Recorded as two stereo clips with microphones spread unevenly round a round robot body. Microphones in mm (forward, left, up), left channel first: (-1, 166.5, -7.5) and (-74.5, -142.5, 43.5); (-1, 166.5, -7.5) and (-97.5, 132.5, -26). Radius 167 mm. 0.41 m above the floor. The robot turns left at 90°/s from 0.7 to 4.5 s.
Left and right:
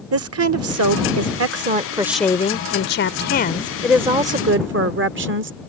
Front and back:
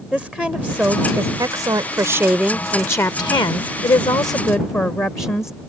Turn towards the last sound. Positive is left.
turn(degrees=-55)